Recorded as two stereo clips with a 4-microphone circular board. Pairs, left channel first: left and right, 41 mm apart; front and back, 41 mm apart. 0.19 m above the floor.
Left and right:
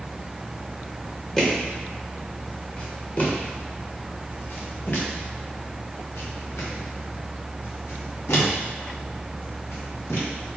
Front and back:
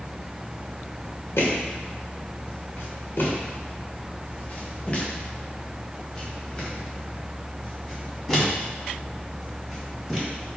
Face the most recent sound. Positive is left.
turn(degrees=95)